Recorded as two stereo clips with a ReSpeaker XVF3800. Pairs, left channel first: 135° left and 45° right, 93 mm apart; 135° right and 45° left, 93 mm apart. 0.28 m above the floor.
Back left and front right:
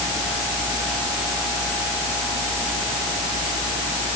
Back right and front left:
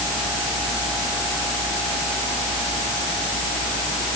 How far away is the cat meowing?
No cat meowing in this recording.